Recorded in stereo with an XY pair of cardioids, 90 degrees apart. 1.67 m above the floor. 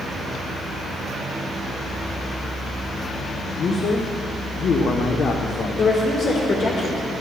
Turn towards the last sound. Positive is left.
turn(degrees=55)